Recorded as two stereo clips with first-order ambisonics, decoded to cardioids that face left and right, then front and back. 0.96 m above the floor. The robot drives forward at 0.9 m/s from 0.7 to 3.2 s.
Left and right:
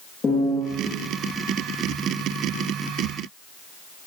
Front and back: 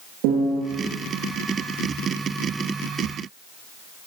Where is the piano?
165° left, 9.5 m.